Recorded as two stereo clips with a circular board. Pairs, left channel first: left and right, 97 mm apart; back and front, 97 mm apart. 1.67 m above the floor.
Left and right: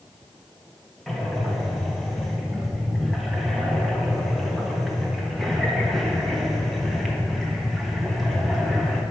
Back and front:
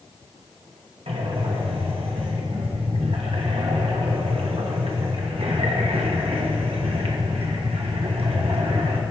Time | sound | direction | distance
1.1 | breathing | straight ahead | 1.3 m